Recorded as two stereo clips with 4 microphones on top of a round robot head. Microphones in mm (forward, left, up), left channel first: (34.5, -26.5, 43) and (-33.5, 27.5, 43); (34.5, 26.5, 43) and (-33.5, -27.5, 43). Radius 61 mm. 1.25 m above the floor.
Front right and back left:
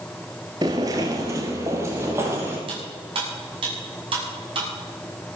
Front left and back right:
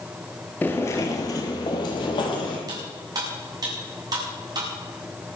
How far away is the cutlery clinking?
About 7 m.